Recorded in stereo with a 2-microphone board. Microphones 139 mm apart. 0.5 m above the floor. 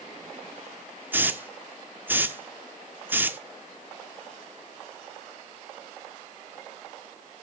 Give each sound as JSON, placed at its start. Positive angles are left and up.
{"t": 1.1, "sound": "a hiss", "side_deg": -15, "distance_m": 0.7}